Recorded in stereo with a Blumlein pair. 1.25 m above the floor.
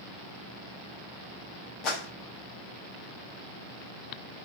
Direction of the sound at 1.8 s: 35° left.